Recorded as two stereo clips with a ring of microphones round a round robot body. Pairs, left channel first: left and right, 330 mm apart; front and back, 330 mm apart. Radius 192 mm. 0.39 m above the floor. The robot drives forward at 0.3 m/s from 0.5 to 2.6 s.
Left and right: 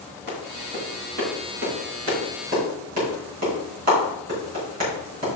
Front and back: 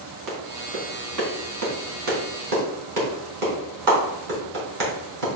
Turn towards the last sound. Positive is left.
turn(degrees=-155)